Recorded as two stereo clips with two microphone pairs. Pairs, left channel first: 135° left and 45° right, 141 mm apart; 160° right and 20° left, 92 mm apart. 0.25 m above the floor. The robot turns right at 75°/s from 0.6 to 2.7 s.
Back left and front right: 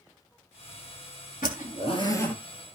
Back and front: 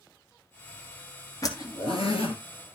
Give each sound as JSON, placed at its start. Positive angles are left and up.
{"t": 1.4, "sound": "a zipper", "azimuth_deg": 145, "distance_m": 1.7}